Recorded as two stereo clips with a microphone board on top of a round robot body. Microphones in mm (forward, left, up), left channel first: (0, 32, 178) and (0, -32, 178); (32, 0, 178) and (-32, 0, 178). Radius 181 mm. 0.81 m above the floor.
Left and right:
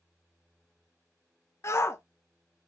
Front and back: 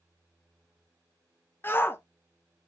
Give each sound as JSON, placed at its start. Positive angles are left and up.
{"t": 1.6, "sound": "a shout", "azimuth_deg": 50, "distance_m": 0.7}